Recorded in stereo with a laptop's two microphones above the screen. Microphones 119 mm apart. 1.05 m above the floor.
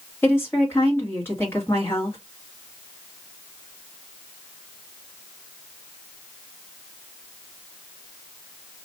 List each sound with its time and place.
0.2 s a woman speaking: 20° left (ahead or behind), 1.6 m